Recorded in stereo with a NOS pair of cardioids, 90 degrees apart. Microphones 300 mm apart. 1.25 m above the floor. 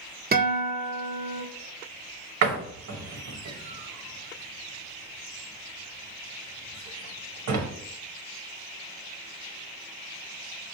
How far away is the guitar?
About 1.1 m.